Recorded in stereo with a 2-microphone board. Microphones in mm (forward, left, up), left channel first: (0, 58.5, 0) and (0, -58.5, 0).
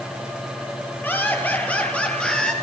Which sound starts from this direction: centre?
Laughter, at 1.0 s.